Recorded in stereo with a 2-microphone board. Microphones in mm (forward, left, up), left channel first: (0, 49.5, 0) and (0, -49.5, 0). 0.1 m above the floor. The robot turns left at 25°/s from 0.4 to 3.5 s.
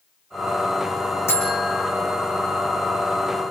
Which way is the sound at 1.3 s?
25° left (ahead or behind).